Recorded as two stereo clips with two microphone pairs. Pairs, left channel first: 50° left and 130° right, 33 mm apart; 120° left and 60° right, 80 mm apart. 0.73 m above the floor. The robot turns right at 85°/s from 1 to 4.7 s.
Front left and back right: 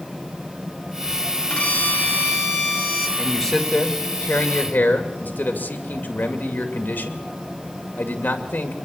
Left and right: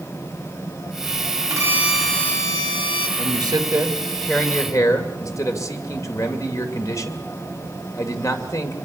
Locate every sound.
1.5 s a violin: 15° right, 2.5 m; by 3.1 s 120° left, 2.5 m
3.2 s a man speaking: 55° right, 2.5 m; by 8.8 s 70° left, 2.5 m